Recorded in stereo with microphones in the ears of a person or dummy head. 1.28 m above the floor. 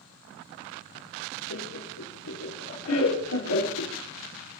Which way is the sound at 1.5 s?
85° left.